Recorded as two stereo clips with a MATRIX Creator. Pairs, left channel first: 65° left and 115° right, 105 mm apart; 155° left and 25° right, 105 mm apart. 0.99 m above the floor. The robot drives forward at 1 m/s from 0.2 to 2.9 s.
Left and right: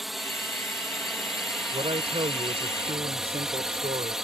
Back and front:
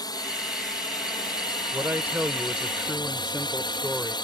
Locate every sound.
0.0 s a drone: 160° left; by 4.3 s 165° left
1.7 s a man speaking: 90° right; by 4.2 s 105° right